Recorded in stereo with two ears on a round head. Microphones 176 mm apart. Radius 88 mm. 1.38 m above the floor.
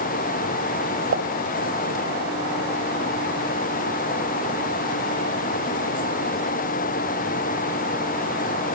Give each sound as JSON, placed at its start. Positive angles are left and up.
{"t": 1.1, "sound": "a pop", "side_deg": -65, "distance_m": 3.0}